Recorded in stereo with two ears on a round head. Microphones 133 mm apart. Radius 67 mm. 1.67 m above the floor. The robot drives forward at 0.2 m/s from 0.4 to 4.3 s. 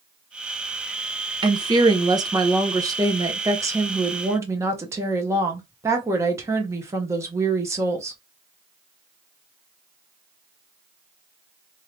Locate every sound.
1.4 s a woman speaking: 30° right (ahead or behind), 0.7 m; by 8.2 s 20° right (ahead or behind), 1.0 m